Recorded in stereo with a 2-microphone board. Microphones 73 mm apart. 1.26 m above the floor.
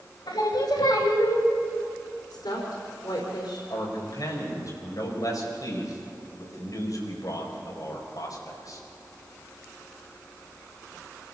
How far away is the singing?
About 3.5 m.